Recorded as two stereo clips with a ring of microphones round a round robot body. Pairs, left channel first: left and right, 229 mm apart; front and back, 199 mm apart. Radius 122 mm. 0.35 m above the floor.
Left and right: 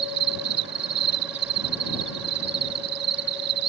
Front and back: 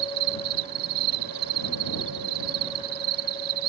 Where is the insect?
135° right.